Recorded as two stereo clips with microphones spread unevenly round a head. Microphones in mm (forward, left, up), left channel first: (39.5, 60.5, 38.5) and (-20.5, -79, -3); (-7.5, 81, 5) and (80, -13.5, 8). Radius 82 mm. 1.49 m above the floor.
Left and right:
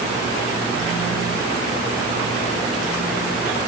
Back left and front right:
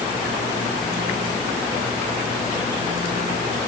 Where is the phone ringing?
No phone ringing in this recording.